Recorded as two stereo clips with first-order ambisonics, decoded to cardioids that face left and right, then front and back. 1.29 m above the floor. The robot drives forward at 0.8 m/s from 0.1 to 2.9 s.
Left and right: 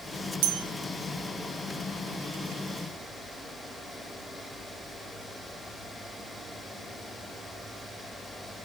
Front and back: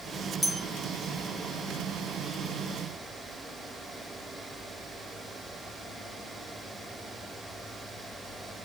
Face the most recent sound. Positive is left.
turn(degrees=-160)